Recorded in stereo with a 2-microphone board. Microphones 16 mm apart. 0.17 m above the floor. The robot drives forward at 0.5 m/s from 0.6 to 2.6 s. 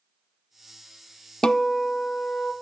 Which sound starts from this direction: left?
A guitar, at 1.4 s.